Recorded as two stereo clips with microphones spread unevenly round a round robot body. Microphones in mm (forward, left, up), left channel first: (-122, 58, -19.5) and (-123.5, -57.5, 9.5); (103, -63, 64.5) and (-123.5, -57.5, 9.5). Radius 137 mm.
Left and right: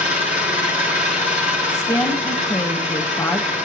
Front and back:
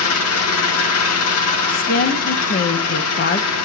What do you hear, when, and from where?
0.0 s an engine running: 40° left, 1.8 m
1.7 s a woman speaking: 50° left, 1.0 m